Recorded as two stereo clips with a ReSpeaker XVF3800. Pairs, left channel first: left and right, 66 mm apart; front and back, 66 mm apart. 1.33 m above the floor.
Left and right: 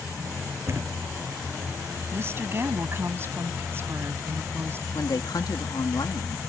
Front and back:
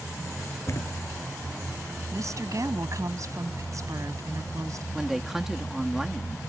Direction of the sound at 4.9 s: 95° left.